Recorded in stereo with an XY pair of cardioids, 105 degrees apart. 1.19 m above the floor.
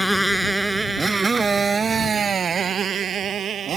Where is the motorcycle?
Straight ahead; by 3.8 s 55° right.